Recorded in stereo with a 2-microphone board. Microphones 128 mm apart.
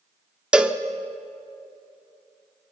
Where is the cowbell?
5° right (ahead or behind), 0.8 m.